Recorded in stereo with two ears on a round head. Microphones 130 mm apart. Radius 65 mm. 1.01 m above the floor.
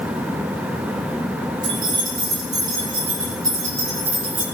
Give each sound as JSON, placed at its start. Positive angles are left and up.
{"t": 1.6, "sound": "keys jangling", "side_deg": -35, "distance_m": 7.0}